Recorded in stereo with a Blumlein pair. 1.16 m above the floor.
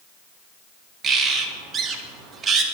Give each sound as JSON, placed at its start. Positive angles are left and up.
{"t": 1.0, "sound": "a bird", "azimuth_deg": -20, "distance_m": 1.0}